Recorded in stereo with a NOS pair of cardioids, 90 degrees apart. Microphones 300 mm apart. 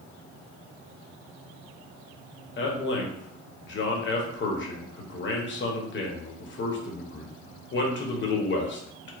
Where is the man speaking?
40° left, 0.9 m.